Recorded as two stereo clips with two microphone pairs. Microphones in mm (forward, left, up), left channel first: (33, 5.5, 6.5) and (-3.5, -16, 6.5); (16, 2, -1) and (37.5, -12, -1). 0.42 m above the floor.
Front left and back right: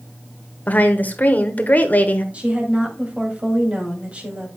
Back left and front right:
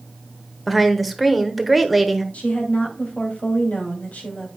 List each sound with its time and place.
0.7 s a woman speaking: 60° left, 1.1 m
2.3 s a woman speaking: 155° left, 2 m